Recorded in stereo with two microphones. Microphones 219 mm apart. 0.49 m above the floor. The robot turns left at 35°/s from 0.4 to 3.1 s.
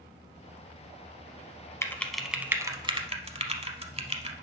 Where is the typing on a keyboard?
15° left (ahead or behind), 0.7 m; by 4.3 s 30° right (ahead or behind), 0.7 m.